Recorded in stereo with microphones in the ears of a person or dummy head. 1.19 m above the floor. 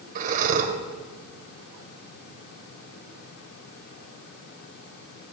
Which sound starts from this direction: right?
Breathing, at 0.1 s.